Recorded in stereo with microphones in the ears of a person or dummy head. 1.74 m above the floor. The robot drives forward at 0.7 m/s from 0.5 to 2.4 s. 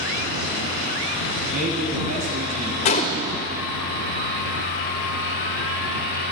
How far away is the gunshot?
About 1.5 m.